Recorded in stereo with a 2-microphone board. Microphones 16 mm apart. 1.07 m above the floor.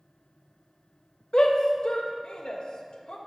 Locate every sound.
1.3 s a shout: 65° left (ahead or behind), 0.8 m